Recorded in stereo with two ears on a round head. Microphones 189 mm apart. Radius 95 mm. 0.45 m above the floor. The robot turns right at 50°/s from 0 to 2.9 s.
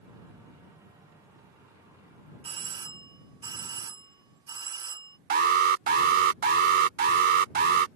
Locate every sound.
2.4 s a doorbell: 30° right (ahead or behind); by 5.2 s 20° right (ahead or behind)
5.3 s an alarm: 45° right (ahead or behind)